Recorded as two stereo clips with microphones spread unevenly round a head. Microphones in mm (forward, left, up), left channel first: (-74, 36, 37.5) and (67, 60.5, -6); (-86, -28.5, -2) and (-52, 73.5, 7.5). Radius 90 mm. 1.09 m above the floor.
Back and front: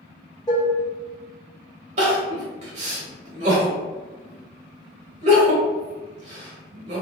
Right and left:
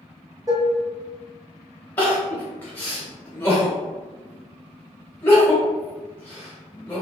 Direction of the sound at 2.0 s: 35° right.